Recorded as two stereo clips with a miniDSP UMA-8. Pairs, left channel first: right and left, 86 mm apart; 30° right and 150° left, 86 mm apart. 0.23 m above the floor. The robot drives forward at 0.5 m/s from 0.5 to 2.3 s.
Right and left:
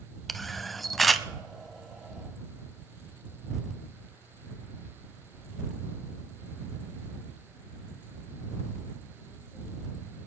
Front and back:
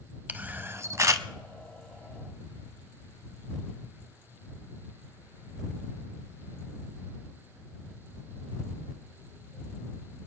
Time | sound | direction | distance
0.3 | a camera shutter | straight behind | 0.5 m